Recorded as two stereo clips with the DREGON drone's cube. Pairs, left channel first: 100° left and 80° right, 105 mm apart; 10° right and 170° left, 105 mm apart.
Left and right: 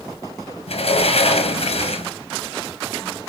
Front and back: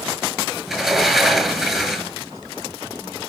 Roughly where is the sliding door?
Left.